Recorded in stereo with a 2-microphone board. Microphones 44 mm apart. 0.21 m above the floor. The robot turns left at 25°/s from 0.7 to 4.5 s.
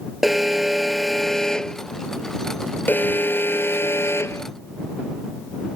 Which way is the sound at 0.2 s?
175° right.